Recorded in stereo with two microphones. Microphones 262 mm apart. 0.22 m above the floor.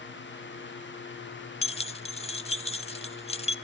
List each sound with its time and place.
1.6 s keys jangling: 25° left (ahead or behind), 0.6 m